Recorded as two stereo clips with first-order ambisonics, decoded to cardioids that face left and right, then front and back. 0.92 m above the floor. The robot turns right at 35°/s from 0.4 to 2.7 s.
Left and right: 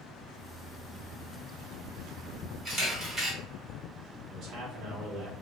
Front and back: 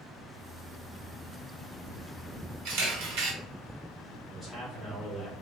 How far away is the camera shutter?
About 1.1 m.